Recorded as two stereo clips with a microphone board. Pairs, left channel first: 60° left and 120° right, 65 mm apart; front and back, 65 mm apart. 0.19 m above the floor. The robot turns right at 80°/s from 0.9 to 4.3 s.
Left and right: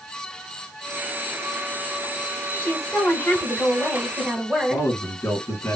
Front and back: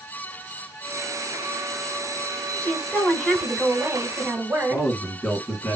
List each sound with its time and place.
2.6 s a woman speaking: 45° left, 1.5 m; by 4.9 s straight behind, 1.5 m
4.7 s a man speaking: 65° left, 2 m